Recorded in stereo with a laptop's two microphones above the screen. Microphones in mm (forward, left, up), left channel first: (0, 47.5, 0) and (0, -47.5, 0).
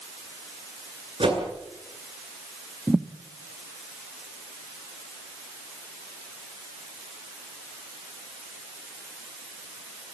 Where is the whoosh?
65° right (ahead or behind), 9 m.